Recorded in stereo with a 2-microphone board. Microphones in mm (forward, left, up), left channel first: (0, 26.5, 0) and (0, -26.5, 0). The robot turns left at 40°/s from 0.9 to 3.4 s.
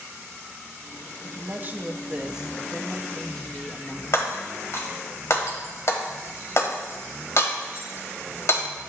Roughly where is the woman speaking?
Right.